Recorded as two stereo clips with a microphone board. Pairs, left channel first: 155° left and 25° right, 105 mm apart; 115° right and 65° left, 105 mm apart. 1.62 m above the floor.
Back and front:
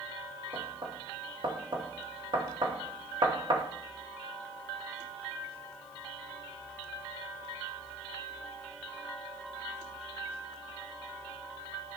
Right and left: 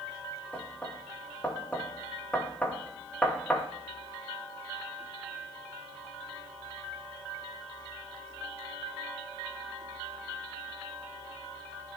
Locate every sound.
0.5 s knocking: 40° right, 1.2 m